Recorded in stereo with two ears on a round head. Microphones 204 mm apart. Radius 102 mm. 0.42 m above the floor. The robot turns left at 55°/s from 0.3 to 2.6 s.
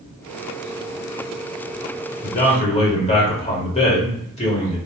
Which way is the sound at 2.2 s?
40° left (ahead or behind).